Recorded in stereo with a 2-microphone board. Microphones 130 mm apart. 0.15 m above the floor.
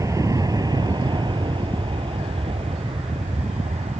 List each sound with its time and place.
0.0 s an aircraft: 25° right (ahead or behind); by 4.0 s 55° right (ahead or behind)